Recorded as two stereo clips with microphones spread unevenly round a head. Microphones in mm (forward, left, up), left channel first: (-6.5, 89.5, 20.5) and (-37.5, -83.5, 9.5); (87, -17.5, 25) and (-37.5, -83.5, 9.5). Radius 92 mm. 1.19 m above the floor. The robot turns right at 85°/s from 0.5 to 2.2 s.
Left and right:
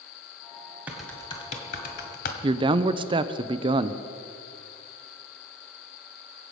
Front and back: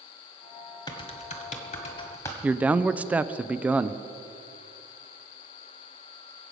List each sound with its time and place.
0.9 s typing on a keyboard: 20° right, 1.5 m; by 2.3 s 95° left, 1.5 m
2.4 s a man speaking: 95° right, 0.6 m